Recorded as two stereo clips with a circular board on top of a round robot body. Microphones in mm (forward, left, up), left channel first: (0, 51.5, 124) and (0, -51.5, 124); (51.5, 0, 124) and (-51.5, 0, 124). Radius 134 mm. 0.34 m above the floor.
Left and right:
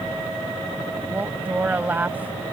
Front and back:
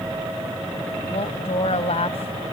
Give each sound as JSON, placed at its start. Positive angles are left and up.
{"t": 1.1, "sound": "a woman speaking", "azimuth_deg": -15}